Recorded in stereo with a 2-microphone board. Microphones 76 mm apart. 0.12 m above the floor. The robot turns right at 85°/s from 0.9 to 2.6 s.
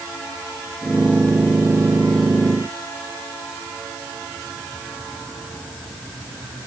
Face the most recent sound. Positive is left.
No sound to turn to.